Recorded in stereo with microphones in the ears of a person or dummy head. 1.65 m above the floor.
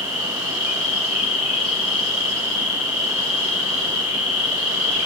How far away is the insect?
About 1.3 m.